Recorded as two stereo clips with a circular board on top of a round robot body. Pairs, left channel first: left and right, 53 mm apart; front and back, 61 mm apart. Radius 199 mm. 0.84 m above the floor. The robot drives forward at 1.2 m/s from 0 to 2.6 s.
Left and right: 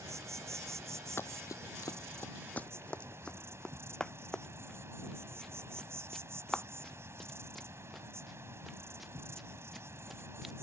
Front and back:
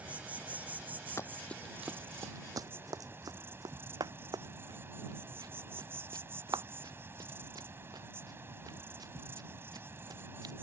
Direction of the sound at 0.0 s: 115° right.